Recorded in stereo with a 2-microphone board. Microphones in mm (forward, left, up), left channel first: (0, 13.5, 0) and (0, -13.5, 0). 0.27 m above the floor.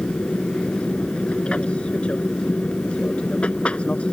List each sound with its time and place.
0.0 s an aircraft: 45° left (ahead or behind)